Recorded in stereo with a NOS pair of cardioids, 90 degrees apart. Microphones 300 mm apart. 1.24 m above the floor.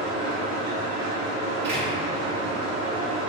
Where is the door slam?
40° right, 1.9 m.